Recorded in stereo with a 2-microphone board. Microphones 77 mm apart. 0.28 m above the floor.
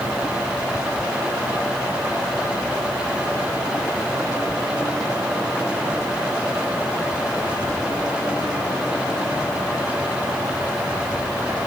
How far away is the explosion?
I don't hear an explosion.